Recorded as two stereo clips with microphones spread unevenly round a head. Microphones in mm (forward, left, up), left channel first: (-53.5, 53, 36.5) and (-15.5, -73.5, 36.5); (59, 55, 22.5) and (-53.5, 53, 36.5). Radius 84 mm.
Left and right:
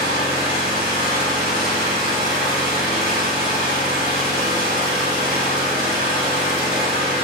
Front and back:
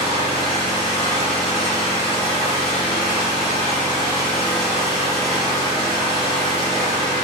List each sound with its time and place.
0.0 s an engine running: 55° right, 1.2 m